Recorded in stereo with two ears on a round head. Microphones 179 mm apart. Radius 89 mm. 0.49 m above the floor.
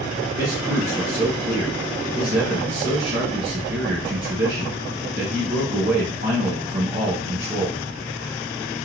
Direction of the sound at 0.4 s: 45° right (ahead or behind).